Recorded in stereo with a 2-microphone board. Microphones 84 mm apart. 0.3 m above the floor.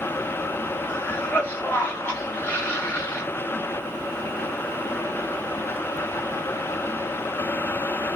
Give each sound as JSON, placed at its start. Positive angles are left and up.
{"t": 0.9, "sound": "a cough", "side_deg": 20, "distance_m": 1.2}